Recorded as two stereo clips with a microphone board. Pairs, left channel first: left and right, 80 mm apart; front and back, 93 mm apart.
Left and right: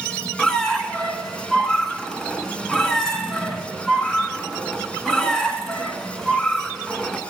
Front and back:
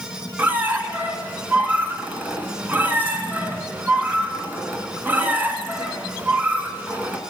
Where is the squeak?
155° left, 1.1 m.